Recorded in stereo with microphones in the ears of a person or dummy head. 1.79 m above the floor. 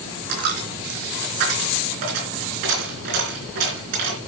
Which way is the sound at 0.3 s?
60° right (ahead or behind).